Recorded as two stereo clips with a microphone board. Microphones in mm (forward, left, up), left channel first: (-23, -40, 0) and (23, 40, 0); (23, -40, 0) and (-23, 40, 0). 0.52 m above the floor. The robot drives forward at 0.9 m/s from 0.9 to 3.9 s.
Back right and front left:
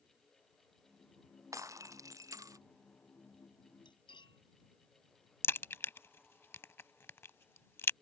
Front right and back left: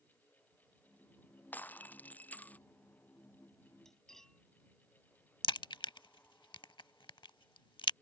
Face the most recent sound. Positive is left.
turn(degrees=-60)